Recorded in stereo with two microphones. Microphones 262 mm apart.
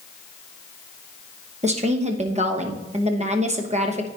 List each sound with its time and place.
1.6 s a woman speaking: 25° right (ahead or behind), 1.0 m